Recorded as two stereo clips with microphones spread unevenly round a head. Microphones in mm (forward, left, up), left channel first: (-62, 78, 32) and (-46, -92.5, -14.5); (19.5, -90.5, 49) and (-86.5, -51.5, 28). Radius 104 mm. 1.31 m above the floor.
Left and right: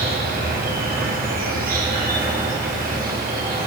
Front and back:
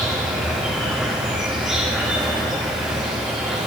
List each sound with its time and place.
0.0 s an insect: 115° right, 6 m